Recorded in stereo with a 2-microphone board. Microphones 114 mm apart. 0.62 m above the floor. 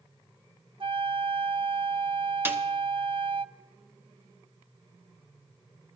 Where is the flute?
50° right (ahead or behind), 0.5 m.